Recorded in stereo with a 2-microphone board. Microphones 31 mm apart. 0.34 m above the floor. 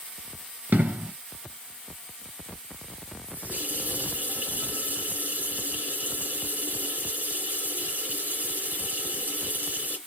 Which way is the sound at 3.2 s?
55° right (ahead or behind).